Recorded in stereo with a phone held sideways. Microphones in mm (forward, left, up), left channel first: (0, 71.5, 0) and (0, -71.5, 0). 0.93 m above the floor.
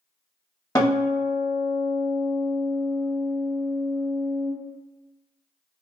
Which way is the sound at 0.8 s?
25° left (ahead or behind).